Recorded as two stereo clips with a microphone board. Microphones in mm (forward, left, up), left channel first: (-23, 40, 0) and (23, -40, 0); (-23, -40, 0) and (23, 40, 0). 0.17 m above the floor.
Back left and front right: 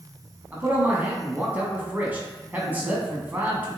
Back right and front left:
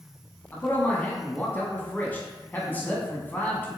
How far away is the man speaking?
About 1.2 m.